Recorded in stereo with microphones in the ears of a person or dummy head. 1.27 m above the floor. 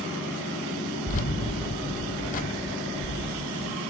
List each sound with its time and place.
1.1 s keys jangling: 45° left (ahead or behind), 0.7 m